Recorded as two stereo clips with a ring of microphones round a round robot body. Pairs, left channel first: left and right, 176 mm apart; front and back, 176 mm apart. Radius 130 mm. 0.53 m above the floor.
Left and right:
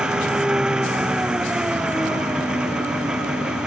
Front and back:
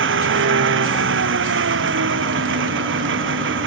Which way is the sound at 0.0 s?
175° right.